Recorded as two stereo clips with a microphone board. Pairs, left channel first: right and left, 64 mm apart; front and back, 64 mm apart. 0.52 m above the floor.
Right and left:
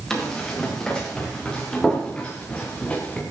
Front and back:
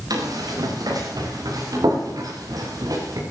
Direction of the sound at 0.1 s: 170° right.